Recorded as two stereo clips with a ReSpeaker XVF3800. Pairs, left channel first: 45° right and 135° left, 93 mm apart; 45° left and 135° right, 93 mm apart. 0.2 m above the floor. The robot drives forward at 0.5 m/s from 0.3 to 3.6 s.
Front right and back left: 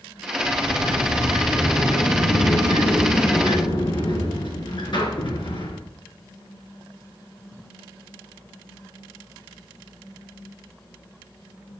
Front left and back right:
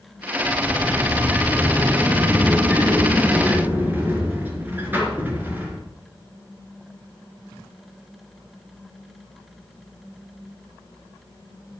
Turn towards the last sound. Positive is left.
turn(degrees=-65)